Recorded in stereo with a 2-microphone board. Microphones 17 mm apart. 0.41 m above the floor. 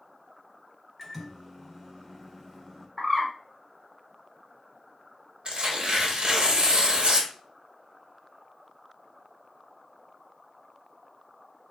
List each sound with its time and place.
1.0 s a microwave: 5° left (ahead or behind), 0.8 m
3.0 s a bird: 5° left (ahead or behind), 1.0 m
5.5 s tearing paper: 55° right (ahead or behind), 0.7 m